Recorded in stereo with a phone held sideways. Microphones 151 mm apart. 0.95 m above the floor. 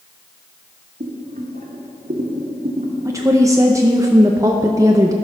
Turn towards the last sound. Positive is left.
turn(degrees=-20)  # may be behind; listen again after turning